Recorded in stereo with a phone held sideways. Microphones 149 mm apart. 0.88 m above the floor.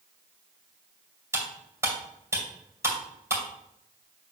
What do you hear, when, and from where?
1.3 s cutlery clinking: 20° right (ahead or behind), 2.5 m